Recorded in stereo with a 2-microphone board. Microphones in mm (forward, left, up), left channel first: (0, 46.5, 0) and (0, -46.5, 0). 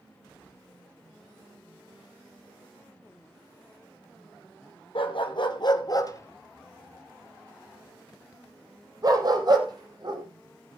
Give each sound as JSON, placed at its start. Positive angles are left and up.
{"t": 5.0, "sound": "a dog barking", "side_deg": 65, "distance_m": 1.8}